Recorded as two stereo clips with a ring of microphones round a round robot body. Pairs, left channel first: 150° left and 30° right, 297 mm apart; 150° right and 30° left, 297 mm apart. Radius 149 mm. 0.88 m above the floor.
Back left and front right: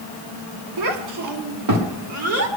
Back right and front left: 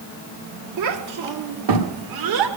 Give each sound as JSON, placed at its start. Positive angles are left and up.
{"t": 0.8, "sound": "a child speaking", "azimuth_deg": -5, "distance_m": 1.2}